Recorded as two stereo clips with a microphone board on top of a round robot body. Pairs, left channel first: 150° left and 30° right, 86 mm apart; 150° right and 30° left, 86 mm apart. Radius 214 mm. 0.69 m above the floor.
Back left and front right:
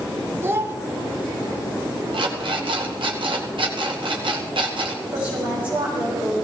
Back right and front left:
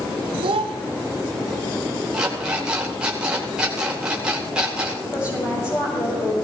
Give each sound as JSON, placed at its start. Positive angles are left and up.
{"t": 0.4, "sound": "a child speaking", "azimuth_deg": 35, "distance_m": 1.2}
{"t": 2.1, "sound": "an alarm clock", "azimuth_deg": -50, "distance_m": 2.0}
{"t": 5.1, "sound": "a woman speaking", "azimuth_deg": -100, "distance_m": 5.5}